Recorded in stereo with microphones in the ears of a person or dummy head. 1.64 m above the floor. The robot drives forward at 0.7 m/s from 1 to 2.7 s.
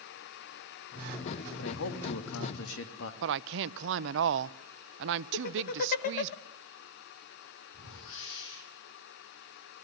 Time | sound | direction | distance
1.6 | a man speaking | 85° left | 3 m
3.2 | a woman speaking | 65° right (ahead or behind) | 0.8 m
5.3 | laughter | 50° left (ahead or behind) | 1.5 m
7.7 | a whoosh | 70° left (ahead or behind) | 6.5 m